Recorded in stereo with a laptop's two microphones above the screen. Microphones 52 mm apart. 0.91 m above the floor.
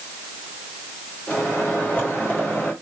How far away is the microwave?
About 1.7 m.